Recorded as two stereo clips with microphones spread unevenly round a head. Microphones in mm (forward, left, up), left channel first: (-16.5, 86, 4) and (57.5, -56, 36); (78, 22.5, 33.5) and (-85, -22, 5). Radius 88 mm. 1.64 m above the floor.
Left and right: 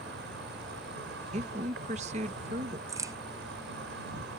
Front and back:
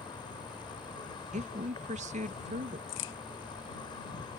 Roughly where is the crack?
Ahead.